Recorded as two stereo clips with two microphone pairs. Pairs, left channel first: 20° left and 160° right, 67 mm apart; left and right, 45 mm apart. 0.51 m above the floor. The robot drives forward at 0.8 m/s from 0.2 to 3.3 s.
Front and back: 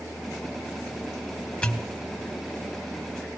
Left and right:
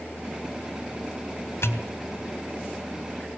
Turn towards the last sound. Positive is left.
turn(degrees=130)